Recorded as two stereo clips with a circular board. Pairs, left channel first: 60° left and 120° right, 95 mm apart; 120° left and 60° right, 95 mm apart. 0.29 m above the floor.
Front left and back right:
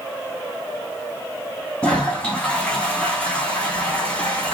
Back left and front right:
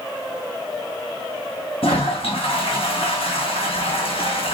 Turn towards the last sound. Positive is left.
turn(degrees=140)